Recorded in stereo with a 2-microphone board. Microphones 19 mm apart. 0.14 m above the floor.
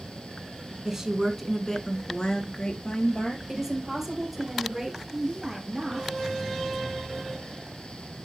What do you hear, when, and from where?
0.8 s a woman speaking: 20° right (ahead or behind), 1.4 m; by 3.4 s 70° left (ahead or behind), 3.5 m
3.5 s a woman speaking: 10° right (ahead or behind), 3 m
5.1 s a woman speaking: 10° right (ahead or behind), 2.5 m